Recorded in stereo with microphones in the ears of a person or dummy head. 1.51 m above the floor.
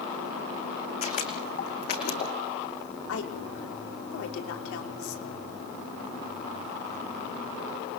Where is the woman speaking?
65° left (ahead or behind), 5 m.